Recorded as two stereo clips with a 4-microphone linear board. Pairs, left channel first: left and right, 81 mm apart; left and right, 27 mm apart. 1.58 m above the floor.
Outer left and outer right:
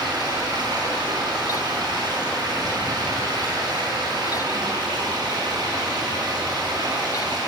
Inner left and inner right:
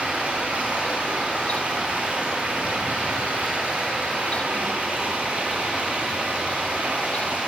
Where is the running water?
60° right (ahead or behind), 4 m.